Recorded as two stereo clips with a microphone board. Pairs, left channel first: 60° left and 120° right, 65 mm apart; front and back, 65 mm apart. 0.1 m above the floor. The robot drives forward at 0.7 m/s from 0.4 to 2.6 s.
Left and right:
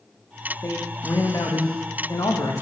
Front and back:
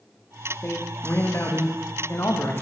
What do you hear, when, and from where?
0.6 s a man speaking: 40° left, 8.5 m; by 2.6 s 45° left, 7.5 m